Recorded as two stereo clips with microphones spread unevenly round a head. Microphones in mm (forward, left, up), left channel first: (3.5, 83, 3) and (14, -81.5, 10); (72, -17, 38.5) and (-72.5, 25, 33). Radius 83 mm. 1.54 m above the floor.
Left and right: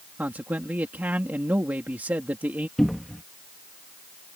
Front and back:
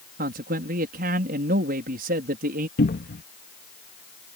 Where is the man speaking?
165° right.